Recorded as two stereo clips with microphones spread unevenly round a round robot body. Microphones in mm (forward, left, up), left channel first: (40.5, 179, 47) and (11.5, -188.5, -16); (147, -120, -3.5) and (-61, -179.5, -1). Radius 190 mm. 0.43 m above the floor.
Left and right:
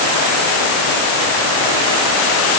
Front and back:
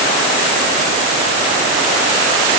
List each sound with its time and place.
Only background noise.